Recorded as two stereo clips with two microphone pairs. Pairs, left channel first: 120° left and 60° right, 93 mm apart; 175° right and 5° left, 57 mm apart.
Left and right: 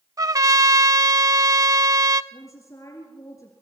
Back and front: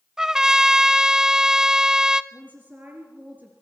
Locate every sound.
0.2 s a trumpet: 70° right, 0.7 m
2.3 s a woman speaking: 65° left, 3.5 m